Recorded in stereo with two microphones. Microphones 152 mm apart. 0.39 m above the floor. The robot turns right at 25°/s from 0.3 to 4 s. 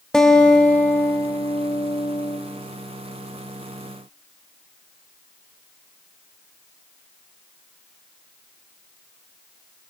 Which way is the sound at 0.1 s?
10° left.